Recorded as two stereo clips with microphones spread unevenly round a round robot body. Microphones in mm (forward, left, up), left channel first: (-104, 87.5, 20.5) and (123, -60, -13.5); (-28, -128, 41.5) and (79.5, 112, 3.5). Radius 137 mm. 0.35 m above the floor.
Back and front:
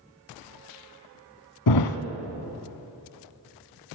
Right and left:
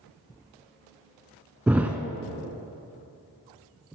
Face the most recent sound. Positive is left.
turn(degrees=155)